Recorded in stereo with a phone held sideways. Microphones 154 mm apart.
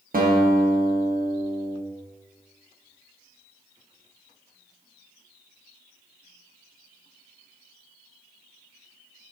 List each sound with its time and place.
0.1 s a guitar: 60° right (ahead or behind), 0.9 m